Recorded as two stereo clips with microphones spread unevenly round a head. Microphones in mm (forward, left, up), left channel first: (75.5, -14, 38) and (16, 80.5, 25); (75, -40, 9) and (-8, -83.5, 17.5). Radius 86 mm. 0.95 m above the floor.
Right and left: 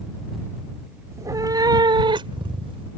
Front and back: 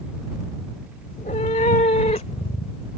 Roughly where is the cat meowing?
Ahead left.